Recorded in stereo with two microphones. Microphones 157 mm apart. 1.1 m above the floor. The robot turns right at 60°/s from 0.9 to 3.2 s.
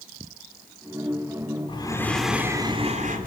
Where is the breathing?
145° left, 3.5 m; by 3.3 s 120° right, 3.5 m.